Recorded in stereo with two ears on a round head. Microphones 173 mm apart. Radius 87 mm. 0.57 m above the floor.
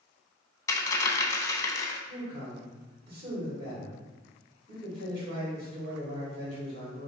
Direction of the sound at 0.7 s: 20° left (ahead or behind).